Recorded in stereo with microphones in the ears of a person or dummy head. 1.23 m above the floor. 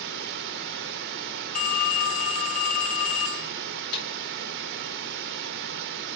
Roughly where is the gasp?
No gasp in this recording.